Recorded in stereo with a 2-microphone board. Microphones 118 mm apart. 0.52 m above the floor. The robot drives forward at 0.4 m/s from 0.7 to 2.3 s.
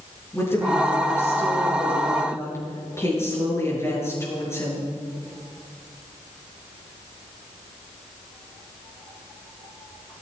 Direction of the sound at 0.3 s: 20° left (ahead or behind).